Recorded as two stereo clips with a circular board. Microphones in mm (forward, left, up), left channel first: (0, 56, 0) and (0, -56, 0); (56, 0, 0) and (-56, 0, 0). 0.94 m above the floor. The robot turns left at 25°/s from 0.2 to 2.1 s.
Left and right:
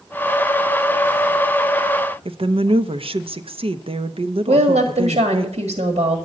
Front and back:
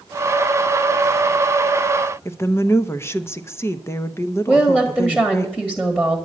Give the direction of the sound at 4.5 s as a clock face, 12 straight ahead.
3 o'clock.